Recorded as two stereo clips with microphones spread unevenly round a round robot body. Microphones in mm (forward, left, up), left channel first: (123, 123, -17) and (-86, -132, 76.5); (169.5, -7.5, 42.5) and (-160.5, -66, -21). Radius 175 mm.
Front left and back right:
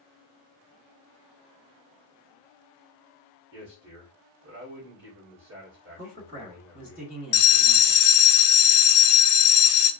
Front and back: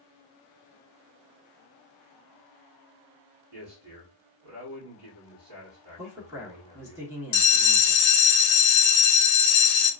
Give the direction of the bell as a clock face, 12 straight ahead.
11 o'clock.